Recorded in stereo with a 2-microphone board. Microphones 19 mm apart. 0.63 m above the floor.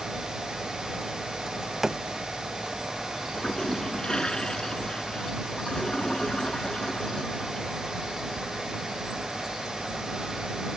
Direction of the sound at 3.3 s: 35° left (ahead or behind).